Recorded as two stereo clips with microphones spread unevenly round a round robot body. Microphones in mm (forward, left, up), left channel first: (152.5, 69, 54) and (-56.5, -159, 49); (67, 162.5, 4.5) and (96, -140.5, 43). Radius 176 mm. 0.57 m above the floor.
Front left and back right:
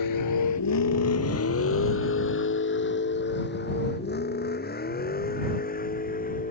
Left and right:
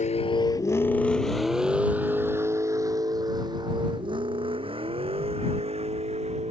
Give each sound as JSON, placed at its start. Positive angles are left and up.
{"t": 0.0, "sound": "a vehicle", "azimuth_deg": 30}